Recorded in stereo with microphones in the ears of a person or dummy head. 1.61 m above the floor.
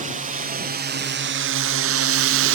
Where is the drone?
35° right (ahead or behind); by 2.5 s 55° right (ahead or behind).